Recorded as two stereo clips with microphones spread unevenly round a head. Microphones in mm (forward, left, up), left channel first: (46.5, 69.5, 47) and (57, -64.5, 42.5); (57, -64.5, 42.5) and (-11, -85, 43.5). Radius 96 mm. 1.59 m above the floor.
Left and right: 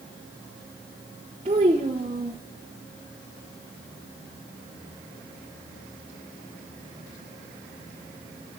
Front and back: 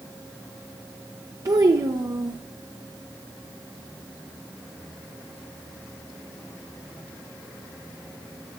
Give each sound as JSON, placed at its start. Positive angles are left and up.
{"t": 1.4, "sound": "a child speaking", "azimuth_deg": -145, "distance_m": 0.8}